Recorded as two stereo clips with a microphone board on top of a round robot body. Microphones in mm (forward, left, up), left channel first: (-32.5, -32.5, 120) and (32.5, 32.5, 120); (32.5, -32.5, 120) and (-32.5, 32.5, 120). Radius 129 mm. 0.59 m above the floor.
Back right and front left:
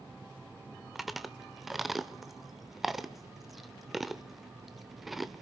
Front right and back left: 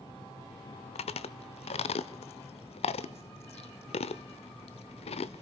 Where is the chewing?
45° right, 0.7 m.